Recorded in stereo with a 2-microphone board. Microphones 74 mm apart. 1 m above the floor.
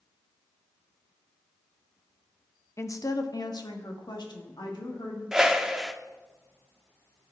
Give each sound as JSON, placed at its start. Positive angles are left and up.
{"t": 2.8, "sound": "a woman speaking", "side_deg": 40, "distance_m": 0.7}
{"t": 5.3, "sound": "a whoosh", "side_deg": -10, "distance_m": 0.5}